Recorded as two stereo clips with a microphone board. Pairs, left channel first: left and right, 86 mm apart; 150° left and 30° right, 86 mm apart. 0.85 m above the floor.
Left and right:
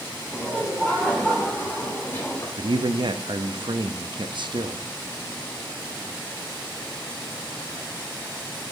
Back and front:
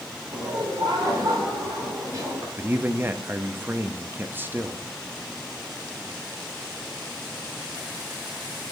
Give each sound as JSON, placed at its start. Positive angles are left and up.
{"t": 0.3, "sound": "laughter", "azimuth_deg": -10, "distance_m": 2.5}
{"t": 2.6, "sound": "a man speaking", "azimuth_deg": -95, "distance_m": 0.6}